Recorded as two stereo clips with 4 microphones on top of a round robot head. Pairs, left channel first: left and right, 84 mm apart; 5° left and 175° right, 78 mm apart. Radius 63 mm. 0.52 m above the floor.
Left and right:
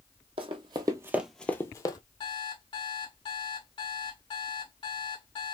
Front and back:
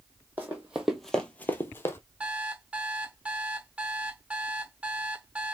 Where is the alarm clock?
110° left, 1.0 m.